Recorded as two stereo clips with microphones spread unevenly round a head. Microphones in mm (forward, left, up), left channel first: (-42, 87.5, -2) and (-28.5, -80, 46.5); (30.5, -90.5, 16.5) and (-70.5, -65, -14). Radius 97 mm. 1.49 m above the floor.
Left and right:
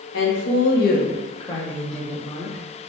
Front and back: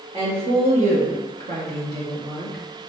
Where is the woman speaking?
100° left, 1.1 m; by 2.6 s 155° right, 1.5 m.